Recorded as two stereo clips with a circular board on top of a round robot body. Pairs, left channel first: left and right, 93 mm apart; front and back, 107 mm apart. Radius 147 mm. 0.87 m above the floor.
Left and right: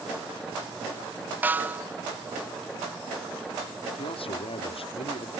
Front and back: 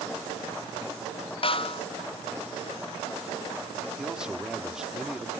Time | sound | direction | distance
1.4 | a snare drum | 20° right | ?
4.0 | a man speaking | 95° left | ?